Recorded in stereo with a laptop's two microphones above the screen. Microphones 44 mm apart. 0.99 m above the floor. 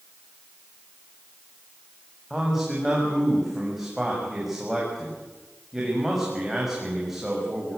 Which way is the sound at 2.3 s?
5° right (ahead or behind).